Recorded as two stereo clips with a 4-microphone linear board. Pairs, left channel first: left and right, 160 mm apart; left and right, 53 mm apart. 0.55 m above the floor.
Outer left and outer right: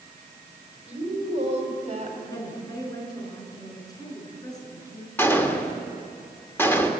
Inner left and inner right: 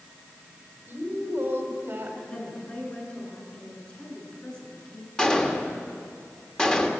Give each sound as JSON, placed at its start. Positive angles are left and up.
{"t": 0.9, "sound": "a woman speaking", "side_deg": -40, "distance_m": 3.5}
{"t": 2.3, "sound": "a woman speaking", "side_deg": 25, "distance_m": 6.0}
{"t": 5.2, "sound": "a gunshot", "side_deg": 15, "distance_m": 1.8}